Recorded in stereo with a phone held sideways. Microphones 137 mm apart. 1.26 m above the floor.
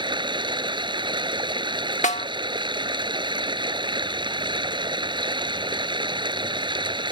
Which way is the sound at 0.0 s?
35° right (ahead or behind).